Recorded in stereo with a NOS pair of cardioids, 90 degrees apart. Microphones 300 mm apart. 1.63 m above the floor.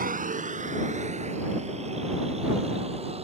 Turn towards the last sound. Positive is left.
turn(degrees=-20)